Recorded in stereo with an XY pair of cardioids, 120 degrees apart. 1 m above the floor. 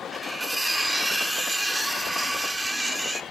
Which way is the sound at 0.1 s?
5° right.